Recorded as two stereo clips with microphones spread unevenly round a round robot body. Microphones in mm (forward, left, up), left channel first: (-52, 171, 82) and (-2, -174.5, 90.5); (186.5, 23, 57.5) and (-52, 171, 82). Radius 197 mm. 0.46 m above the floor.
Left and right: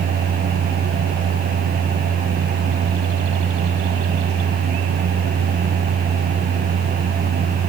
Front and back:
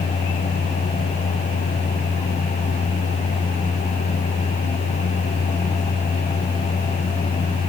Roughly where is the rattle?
No rattle in this recording.